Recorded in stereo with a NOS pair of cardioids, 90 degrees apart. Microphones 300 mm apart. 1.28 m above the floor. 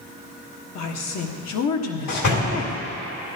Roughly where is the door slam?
Ahead left.